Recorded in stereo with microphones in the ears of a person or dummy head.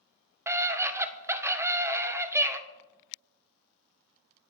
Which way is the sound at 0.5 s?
15° right (ahead or behind).